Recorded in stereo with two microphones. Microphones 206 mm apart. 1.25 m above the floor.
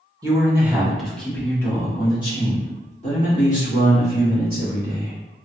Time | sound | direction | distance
0.2 | a man speaking | 15° right (ahead or behind) | 1.4 m